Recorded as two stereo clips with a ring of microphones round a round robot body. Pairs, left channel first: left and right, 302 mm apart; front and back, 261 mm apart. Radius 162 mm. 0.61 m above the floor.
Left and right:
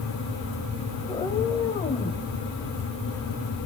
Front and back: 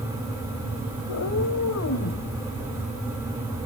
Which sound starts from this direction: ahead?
A cat meowing, at 1.1 s.